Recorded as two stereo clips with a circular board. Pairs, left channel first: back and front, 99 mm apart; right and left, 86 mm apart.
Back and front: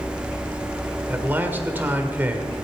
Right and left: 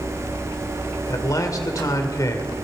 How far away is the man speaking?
About 1.8 m.